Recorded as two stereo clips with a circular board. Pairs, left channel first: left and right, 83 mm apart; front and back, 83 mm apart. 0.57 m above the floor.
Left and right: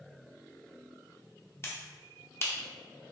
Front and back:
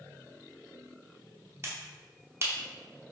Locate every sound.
1.6 s a finger snap: 135° left, 0.8 m